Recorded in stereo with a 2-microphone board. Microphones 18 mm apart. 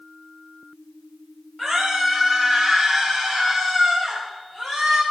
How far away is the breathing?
I don't hear breathing.